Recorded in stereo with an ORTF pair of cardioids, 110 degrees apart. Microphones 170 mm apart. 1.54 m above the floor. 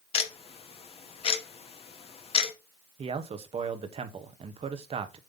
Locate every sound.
0.1 s ticking: 35° left, 1.4 m
3.0 s a man speaking: 35° right, 1.3 m